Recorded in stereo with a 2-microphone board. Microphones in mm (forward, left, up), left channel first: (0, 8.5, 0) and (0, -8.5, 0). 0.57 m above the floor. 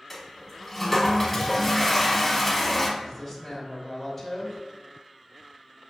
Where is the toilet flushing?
10° left (ahead or behind), 0.9 m.